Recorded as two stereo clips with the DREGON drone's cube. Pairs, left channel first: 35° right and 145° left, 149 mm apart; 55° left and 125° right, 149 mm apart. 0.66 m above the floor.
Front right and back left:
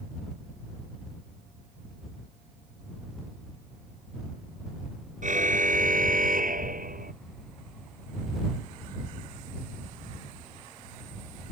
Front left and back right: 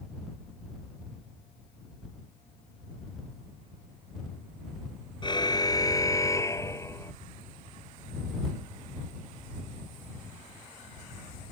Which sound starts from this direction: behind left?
A car horn, at 5.2 s.